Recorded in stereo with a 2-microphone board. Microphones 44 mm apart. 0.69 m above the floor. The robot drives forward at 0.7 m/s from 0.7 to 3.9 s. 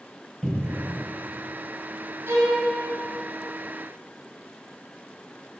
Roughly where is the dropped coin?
No dropped coin in this recording.